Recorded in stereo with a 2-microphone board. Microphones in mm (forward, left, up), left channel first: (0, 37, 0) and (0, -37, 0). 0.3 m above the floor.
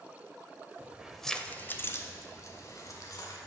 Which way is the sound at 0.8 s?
20° right (ahead or behind).